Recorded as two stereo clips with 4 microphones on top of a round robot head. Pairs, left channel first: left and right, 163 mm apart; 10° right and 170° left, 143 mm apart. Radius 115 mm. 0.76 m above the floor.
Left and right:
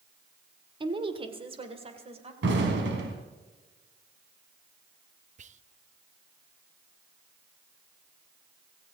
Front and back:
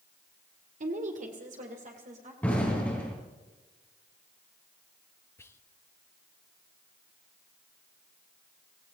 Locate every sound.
0.8 s a woman speaking: 150° right, 1.9 m; by 2.3 s 140° right, 3 m
2.4 s an explosion: 95° right, 3 m
5.4 s whispering: 75° right, 0.7 m